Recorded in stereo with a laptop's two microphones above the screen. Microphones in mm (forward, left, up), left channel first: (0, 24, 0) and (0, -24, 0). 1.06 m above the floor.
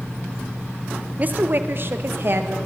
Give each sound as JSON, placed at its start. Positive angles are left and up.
{"t": 1.2, "sound": "a woman speaking", "side_deg": -35, "distance_m": 0.6}